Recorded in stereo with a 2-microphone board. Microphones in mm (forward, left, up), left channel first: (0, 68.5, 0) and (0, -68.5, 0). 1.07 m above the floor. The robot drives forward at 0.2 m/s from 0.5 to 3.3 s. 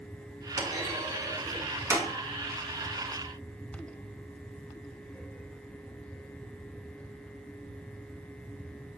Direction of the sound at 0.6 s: 25° right (ahead or behind).